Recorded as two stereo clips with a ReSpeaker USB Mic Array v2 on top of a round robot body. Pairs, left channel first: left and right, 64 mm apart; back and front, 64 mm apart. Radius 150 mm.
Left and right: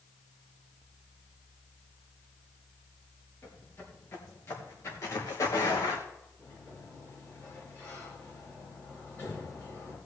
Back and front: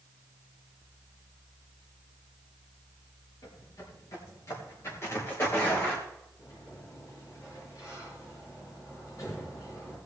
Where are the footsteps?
150° left, 4.5 m; by 6.0 s 115° left, 3 m.